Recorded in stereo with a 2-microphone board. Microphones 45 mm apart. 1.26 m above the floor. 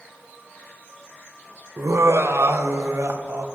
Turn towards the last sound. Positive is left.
turn(degrees=-70)  # may be behind; listen again after turning